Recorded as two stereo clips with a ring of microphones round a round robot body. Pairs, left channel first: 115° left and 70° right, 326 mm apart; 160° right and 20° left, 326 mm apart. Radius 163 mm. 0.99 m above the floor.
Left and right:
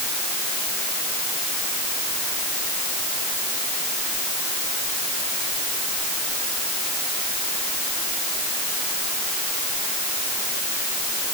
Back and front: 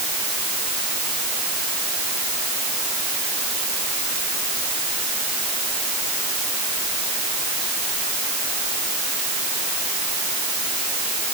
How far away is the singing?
I don't hear singing.